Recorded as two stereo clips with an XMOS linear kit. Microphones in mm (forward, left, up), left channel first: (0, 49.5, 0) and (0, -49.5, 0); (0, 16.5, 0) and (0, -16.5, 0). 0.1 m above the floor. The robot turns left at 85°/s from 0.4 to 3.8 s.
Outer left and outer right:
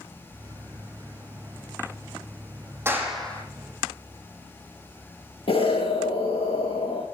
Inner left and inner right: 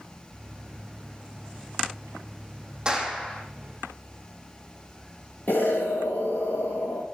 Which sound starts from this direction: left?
An explosion, at 5.5 s.